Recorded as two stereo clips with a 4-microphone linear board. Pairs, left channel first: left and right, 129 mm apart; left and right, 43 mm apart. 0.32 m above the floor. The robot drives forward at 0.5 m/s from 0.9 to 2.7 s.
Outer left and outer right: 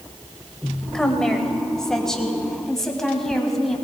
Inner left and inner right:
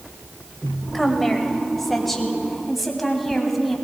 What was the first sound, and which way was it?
A woman speaking, 5° left (ahead or behind).